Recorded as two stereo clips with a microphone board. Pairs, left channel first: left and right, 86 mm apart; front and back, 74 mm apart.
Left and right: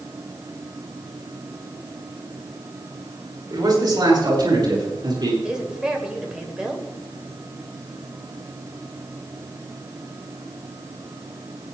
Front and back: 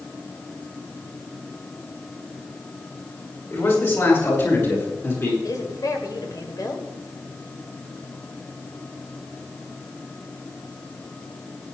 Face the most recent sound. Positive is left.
turn(degrees=-15)